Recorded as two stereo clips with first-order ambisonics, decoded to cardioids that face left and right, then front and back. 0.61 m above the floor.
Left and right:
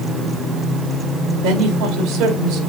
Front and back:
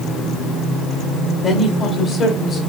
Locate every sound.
1.4 s a woman speaking: 75° right, 1.7 m